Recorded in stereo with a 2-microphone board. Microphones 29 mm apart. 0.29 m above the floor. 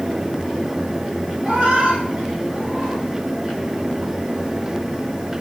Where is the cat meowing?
45° right (ahead or behind), 5.5 m.